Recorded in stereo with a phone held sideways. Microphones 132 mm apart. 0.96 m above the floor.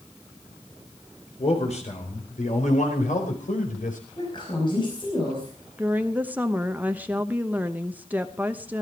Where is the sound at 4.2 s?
35° left (ahead or behind), 5 m.